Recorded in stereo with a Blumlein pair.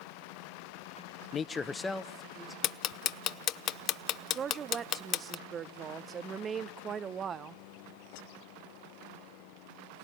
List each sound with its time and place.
1.3 s a man speaking: 25° left, 0.5 m; by 2.5 s 5° right, 1.6 m
2.6 s ticking: 30° left, 0.6 m
4.3 s a woman speaking: 25° right, 0.6 m